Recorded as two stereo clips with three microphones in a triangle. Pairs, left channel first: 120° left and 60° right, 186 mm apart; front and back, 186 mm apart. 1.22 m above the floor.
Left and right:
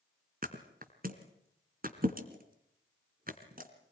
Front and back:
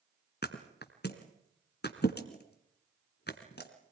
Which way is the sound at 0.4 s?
20° right.